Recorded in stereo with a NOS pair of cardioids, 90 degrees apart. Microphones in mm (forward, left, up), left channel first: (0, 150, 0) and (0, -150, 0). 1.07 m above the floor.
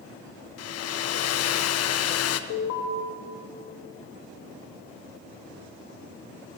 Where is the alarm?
60° left, 1.4 m.